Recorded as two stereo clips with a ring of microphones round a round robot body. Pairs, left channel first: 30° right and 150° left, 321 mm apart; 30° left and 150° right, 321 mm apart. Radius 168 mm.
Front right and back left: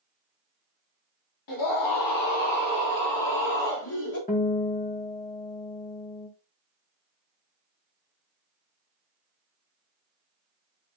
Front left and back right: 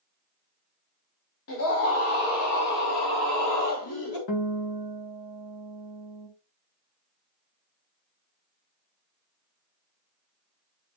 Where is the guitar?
35° left, 2.0 m.